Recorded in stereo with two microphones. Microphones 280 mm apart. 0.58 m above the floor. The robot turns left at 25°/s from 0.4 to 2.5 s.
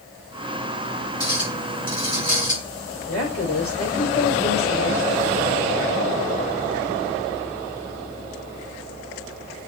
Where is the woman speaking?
55° left (ahead or behind), 2 m.